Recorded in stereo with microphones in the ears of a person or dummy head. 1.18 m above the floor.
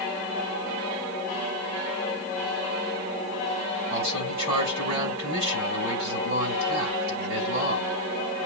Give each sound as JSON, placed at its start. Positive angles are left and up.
{"t": 3.9, "sound": "a man speaking", "side_deg": -50, "distance_m": 8.5}